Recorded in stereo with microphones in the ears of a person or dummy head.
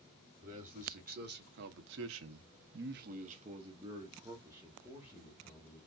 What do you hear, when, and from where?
0.4 s a man speaking: 40° right (ahead or behind), 1.2 m; by 5.8 s 5° right (ahead or behind), 1.7 m